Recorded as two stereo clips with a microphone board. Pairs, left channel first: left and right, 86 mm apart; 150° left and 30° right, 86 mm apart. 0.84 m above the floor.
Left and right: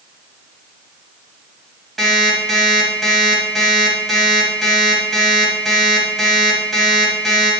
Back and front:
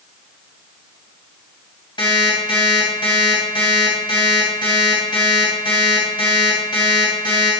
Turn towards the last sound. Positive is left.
turn(degrees=180)